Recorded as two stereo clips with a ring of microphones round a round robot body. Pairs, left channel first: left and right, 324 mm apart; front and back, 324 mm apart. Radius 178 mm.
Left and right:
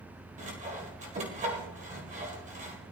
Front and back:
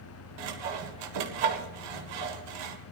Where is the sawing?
160° right, 1.8 m.